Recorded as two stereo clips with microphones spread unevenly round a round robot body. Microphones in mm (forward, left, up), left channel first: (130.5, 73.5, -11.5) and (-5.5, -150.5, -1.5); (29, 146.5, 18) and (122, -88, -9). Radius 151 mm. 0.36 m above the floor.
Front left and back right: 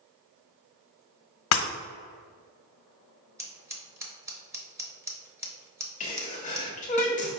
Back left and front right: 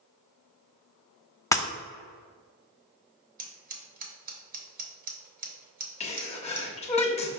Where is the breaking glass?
30° left, 0.7 m.